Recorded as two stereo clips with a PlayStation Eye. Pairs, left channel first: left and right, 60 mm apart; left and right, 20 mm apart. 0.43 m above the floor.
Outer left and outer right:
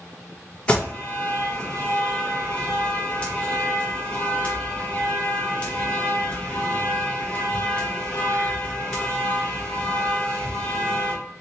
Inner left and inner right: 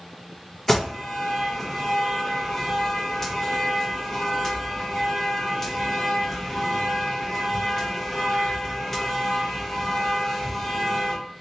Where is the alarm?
20° left (ahead or behind), 1.8 m.